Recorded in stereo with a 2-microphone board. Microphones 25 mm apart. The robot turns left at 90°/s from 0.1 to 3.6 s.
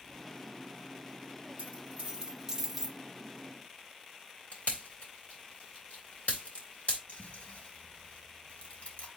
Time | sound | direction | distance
1.6 | a dropped coin | 75° right (ahead or behind) | 2 m
4.5 | a pop | 70° left (ahead or behind) | 3.5 m
7.1 | chewing | 55° left (ahead or behind) | 3.5 m